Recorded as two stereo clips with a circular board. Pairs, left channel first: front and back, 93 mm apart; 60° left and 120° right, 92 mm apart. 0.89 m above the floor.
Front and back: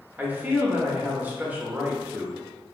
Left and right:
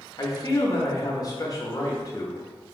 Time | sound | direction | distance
0.2 | a man speaking | 110° left | 0.7 m